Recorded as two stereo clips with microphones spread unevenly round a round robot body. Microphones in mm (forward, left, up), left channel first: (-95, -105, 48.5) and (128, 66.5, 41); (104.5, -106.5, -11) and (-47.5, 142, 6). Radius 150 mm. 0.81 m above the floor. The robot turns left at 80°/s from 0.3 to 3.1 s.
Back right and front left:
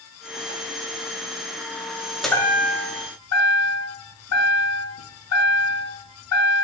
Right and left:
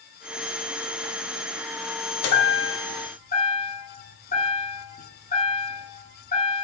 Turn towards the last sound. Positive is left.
turn(degrees=-120)